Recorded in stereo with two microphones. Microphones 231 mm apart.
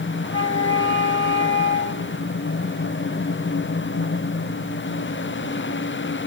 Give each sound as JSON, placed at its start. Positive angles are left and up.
{"t": 0.2, "sound": "a flute", "side_deg": 20, "distance_m": 2.5}